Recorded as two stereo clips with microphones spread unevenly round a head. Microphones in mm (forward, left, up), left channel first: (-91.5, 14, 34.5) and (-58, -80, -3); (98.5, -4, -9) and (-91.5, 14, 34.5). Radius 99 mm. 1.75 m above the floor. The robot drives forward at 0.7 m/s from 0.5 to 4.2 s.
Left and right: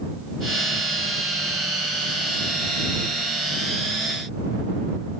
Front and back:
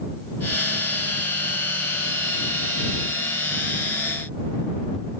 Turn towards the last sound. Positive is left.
No sound to turn to.